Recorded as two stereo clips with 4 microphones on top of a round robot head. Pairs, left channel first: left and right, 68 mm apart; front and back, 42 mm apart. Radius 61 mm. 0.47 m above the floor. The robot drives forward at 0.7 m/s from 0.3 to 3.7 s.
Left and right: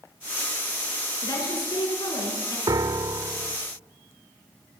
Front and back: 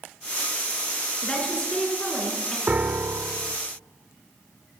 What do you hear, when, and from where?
1.2 s a woman speaking: 70° left, 7 m; by 2.6 s 75° left, 7 m
2.7 s a piano: 120° right, 0.7 m; by 3.6 s 150° right, 1.1 m